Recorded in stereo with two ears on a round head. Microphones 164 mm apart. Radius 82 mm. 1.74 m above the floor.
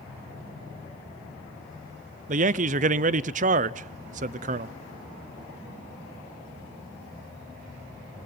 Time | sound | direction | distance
2.3 | a man speaking | 40° right (ahead or behind) | 0.6 m